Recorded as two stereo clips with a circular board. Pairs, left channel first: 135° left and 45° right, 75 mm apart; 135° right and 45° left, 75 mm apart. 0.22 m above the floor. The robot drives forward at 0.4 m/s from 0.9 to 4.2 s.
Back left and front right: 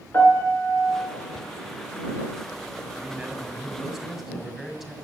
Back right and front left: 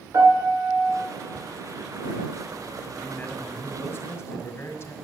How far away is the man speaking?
About 1.3 m.